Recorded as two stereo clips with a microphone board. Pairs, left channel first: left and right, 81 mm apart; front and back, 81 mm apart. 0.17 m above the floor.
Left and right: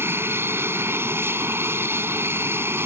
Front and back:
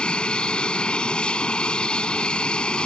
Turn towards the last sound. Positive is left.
turn(degrees=-65)